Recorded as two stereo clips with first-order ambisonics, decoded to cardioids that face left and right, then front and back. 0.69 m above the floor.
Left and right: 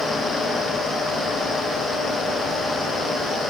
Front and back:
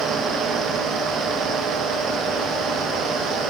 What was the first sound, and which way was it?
Only background noise.